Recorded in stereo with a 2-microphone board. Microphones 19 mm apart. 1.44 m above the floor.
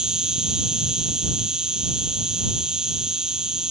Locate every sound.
0.0 s an insect: 35° right (ahead or behind)